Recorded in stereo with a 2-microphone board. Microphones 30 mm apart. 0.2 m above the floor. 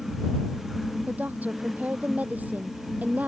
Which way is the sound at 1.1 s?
60° right (ahead or behind).